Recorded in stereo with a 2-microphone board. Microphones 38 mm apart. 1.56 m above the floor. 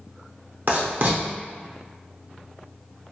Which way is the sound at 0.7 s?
55° right (ahead or behind).